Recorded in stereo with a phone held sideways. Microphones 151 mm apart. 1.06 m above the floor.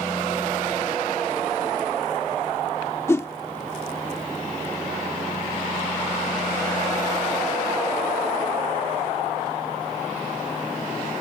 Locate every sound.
3.1 s a whoosh: 20° left (ahead or behind)